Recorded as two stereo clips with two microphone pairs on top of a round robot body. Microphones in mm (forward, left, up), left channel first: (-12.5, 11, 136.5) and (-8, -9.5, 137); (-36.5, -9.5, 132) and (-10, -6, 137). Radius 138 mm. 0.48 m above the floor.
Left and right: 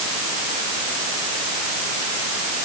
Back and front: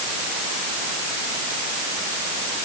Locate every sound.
Only background noise.